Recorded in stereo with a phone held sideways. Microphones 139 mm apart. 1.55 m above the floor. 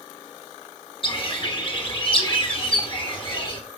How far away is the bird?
About 1.4 m.